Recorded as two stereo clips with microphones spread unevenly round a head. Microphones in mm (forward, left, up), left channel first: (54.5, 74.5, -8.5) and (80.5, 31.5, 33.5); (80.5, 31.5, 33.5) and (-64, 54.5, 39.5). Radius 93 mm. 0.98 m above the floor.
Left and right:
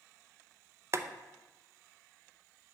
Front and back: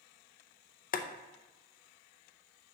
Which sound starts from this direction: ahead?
Boiling, at 0.9 s.